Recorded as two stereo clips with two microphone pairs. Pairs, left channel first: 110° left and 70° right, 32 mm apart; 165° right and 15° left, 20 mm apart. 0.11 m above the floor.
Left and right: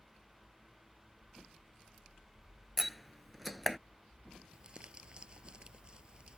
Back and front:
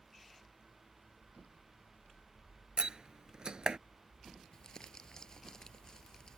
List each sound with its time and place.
2.8 s a door slam: 25° left
4.5 s crumpling: 120° right